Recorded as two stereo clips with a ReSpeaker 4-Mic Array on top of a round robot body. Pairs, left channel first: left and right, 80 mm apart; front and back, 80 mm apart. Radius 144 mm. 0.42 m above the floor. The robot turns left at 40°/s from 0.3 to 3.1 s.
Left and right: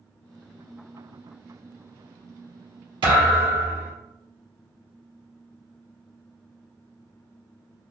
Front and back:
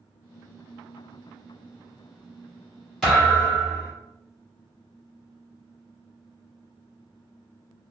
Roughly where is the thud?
Right.